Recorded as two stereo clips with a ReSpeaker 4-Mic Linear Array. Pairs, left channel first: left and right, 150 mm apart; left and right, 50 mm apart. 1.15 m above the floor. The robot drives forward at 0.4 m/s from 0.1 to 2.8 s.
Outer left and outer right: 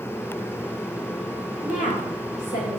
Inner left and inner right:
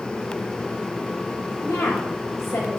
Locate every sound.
1.6 s a woman speaking: 75° left (ahead or behind), 5.5 m; by 2.8 s 80° left, 5.5 m